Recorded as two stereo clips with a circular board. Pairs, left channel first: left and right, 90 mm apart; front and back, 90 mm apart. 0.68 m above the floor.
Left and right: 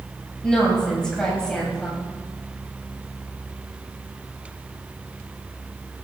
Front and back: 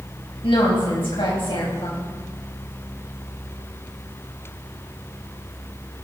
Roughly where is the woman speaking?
Ahead.